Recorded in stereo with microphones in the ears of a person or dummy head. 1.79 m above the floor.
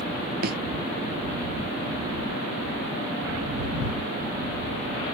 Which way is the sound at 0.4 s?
55° right (ahead or behind).